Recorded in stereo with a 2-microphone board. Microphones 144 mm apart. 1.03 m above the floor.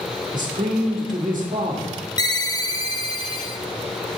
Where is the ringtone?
25° left (ahead or behind), 0.6 m.